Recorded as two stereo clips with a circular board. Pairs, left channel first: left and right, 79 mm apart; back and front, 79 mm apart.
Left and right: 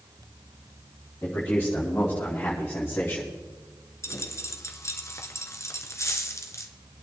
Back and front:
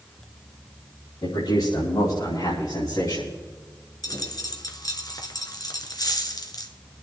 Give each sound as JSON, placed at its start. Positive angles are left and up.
{"t": 1.2, "sound": "a man speaking", "azimuth_deg": 155, "distance_m": 5.5}
{"t": 4.0, "sound": "a dropped coin", "azimuth_deg": 140, "distance_m": 1.6}